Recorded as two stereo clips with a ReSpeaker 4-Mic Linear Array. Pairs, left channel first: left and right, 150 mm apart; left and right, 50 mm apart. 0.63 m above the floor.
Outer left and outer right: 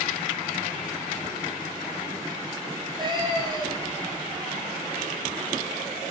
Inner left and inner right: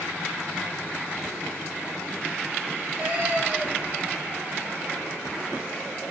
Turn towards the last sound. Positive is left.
turn(degrees=-25)  # may be behind; listen again after turning